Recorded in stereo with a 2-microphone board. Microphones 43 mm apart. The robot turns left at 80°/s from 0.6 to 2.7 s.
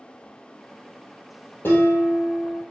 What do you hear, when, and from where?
1.6 s dishes clattering: 110° left, 2 m; by 2.6 s 35° left, 2 m